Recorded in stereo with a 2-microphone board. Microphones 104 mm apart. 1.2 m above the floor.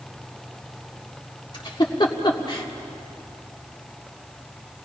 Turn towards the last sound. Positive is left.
turn(degrees=45)  # may be behind; listen again after turning